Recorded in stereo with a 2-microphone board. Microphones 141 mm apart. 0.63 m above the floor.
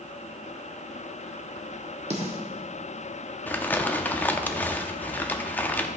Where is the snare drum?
50° right (ahead or behind), 1.5 m.